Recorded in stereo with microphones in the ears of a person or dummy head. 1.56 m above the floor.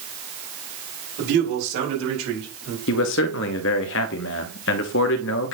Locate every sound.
1.2 s a man speaking: 65° right (ahead or behind), 5.5 m; by 2.8 s 90° right, 4.5 m
2.9 s a man speaking: 65° left (ahead or behind), 0.9 m